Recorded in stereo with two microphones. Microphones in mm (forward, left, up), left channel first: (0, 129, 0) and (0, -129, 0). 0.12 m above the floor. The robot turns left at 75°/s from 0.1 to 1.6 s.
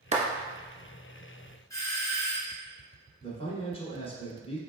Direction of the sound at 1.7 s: 15° left (ahead or behind).